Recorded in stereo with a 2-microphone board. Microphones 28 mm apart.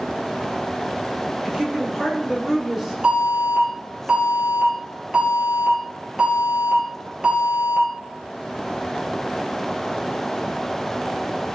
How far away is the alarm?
About 4.5 m.